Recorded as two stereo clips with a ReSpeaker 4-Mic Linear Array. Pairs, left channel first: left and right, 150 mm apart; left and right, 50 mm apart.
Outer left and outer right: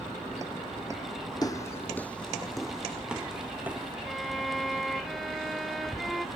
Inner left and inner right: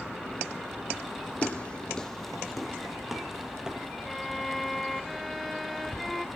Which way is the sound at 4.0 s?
Centre (ahead or behind).